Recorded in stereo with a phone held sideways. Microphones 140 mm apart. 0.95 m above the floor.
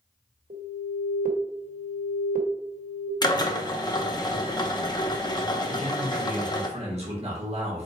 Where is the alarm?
80° right, 1.1 m.